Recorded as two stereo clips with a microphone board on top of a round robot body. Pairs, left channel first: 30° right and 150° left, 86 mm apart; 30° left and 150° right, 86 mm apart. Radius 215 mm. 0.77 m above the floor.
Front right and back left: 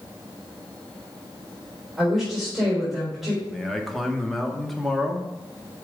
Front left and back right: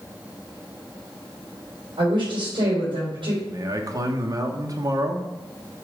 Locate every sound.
2.0 s a woman speaking: 125° right, 3.5 m
3.5 s a man speaking: 120° right, 1.4 m